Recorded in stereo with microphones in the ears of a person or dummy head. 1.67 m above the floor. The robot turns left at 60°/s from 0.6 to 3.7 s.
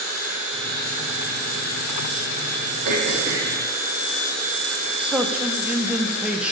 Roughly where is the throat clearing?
Behind right.